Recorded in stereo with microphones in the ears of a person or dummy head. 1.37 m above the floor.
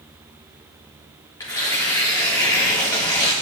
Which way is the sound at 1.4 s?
15° left (ahead or behind).